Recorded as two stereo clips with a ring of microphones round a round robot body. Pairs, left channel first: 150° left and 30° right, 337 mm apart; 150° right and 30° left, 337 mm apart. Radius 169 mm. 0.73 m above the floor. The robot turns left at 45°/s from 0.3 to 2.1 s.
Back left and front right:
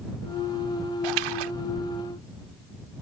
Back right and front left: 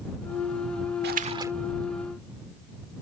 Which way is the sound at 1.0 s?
30° right.